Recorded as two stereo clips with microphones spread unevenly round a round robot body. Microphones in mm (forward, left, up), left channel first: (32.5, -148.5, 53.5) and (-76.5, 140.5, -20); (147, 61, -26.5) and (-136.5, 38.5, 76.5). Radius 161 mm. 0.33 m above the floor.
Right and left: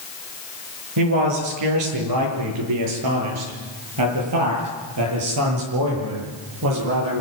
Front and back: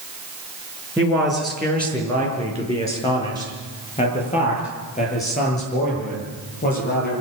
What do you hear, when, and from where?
1.0 s a man speaking: 95° left, 5.5 m; by 7.2 s 60° left, 10.5 m